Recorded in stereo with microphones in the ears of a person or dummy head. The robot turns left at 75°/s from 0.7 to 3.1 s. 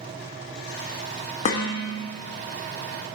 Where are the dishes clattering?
135° left, 1.0 m; by 2.1 s 90° left, 1.0 m.